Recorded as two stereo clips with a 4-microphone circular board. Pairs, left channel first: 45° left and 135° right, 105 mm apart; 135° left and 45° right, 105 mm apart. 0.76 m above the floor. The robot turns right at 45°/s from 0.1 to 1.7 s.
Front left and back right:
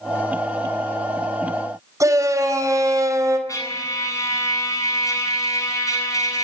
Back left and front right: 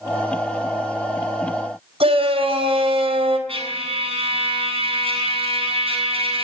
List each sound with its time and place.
2.0 s a shout: 75° right, 4.5 m
3.5 s a trumpet: 15° right, 8 m